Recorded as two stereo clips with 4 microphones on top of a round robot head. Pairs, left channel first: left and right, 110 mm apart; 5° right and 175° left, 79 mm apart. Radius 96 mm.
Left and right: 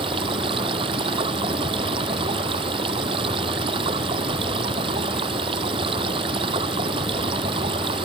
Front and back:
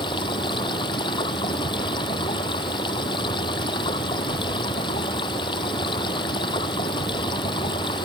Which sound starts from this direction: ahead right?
Running water, at 0.0 s.